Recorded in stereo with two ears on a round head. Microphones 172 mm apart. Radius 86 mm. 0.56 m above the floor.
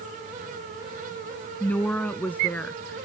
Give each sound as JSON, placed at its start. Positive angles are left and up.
{"t": 1.6, "sound": "a woman speaking", "side_deg": 10}